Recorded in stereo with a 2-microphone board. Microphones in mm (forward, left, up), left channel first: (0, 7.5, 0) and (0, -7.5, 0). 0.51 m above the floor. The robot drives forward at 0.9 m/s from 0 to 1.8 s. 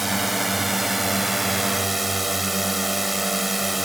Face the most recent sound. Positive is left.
turn(degrees=-5)  # may be behind; listen again after turning